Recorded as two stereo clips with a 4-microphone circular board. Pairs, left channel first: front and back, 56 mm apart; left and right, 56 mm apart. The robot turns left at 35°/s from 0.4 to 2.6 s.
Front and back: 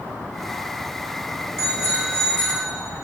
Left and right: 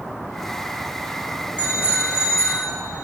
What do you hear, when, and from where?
1.6 s a bicycle bell: 150° left, 5.5 m; by 2.7 s 115° left, 5.5 m